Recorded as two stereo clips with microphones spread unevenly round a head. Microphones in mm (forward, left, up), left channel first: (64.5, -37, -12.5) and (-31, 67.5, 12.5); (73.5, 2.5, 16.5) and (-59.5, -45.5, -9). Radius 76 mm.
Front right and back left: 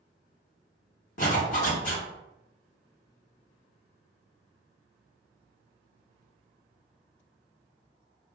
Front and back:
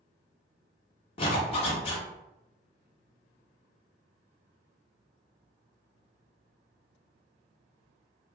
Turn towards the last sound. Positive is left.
turn(degrees=-15)